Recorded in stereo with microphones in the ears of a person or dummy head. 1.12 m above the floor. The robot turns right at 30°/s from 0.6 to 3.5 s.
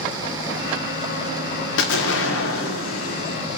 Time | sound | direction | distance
1.8 | an explosion | 85° left | 1.6 m